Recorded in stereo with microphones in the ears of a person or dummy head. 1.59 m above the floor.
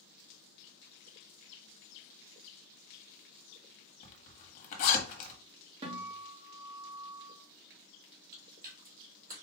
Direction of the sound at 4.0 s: 40° left (ahead or behind).